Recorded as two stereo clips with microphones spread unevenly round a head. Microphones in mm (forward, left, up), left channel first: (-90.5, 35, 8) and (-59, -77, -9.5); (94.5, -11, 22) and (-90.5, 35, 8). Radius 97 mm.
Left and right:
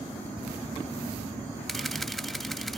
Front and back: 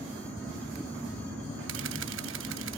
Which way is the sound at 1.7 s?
170° right.